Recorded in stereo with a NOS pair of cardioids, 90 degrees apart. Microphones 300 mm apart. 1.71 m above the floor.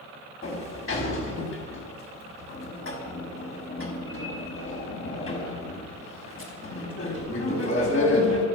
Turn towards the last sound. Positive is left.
turn(degrees=45)